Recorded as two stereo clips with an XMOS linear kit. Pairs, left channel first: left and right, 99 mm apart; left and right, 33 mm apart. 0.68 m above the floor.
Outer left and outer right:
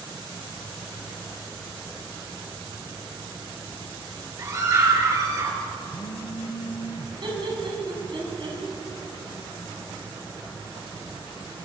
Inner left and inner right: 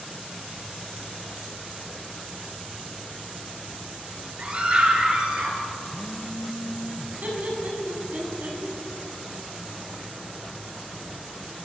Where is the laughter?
55° right (ahead or behind), 7 m.